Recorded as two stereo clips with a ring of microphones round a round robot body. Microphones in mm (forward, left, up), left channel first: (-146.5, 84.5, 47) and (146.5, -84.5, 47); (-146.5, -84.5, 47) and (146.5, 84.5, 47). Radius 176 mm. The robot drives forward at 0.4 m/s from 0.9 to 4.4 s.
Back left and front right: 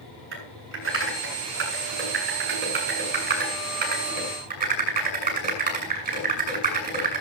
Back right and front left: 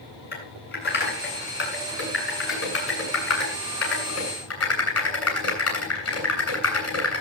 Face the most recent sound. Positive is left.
turn(degrees=-100)